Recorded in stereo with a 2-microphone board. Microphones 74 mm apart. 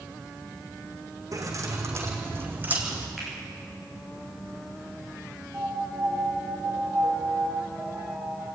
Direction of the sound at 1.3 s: 50° right (ahead or behind).